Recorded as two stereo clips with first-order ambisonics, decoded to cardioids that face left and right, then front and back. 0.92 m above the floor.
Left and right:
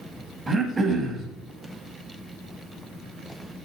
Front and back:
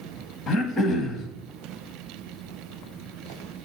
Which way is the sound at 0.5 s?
20° right.